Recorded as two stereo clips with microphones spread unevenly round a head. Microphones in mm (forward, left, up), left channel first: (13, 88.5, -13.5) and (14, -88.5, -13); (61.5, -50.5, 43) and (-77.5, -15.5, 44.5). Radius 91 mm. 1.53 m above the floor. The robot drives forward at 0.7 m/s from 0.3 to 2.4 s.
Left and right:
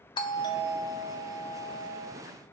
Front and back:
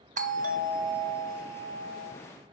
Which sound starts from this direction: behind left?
A doorbell, at 0.2 s.